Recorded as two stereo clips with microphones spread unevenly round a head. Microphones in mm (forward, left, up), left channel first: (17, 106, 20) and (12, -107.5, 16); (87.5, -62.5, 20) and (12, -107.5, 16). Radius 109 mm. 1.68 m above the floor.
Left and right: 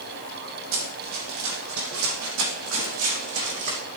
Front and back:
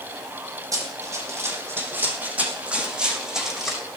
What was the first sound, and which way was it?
Running footsteps, 110° right.